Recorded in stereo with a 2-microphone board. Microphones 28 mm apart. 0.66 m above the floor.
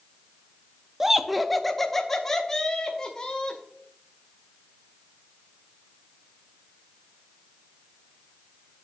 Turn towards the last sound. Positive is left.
turn(degrees=20)  # may be behind; listen again after turning